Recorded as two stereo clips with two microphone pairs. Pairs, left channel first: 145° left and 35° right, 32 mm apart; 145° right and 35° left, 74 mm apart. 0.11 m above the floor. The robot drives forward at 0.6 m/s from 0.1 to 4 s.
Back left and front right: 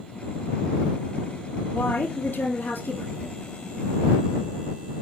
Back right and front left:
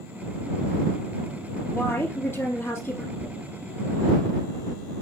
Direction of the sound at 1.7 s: 160° left.